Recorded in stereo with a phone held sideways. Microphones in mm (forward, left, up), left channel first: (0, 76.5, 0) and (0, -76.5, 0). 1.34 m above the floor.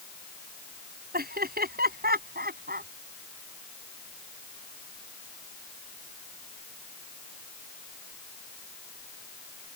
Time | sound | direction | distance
1.1 | laughter | 90° right | ?